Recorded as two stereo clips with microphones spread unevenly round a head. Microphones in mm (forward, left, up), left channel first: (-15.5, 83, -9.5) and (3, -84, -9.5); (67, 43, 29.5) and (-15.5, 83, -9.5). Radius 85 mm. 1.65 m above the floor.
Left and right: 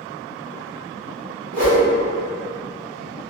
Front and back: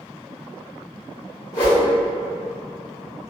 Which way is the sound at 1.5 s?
90° right.